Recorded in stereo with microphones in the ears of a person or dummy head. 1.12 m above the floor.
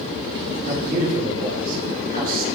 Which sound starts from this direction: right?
A man speaking, at 0.7 s.